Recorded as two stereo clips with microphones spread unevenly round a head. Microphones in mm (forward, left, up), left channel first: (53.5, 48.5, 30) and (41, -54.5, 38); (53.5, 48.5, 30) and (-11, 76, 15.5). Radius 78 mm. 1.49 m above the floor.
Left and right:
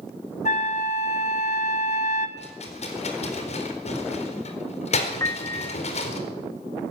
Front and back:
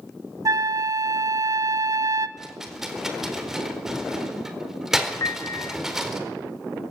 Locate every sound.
0.5 s a flute: 120° left, 2 m
2.4 s a rattle: 70° left, 4 m
5.2 s a piano: 20° left, 0.9 m